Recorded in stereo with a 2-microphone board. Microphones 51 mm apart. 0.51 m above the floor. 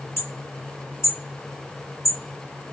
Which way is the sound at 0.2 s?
40° left (ahead or behind).